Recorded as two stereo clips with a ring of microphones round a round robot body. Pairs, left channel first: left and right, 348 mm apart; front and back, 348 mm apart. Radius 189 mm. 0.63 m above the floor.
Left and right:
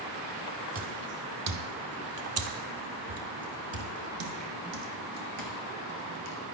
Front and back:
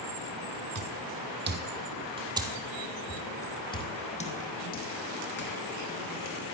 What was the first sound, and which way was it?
Footsteps, 135° right.